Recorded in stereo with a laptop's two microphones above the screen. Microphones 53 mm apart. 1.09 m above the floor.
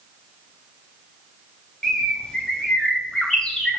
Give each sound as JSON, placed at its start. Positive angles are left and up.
{"t": 1.8, "sound": "a bird", "side_deg": 15, "distance_m": 3.5}